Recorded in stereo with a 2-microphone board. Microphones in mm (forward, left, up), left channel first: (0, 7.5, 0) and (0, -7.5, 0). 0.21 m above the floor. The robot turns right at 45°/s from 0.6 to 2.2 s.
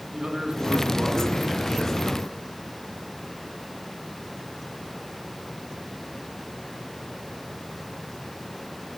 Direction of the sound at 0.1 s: 80° right.